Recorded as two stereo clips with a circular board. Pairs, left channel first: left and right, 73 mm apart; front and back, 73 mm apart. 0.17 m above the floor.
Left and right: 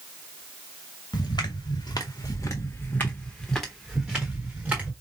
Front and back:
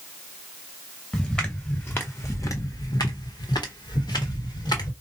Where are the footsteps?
80° left, 1.3 m; by 4.9 s 25° right, 1.5 m.